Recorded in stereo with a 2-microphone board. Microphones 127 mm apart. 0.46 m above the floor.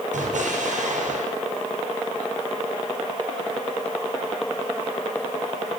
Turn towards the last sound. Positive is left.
turn(degrees=-75)  # may be behind; listen again after turning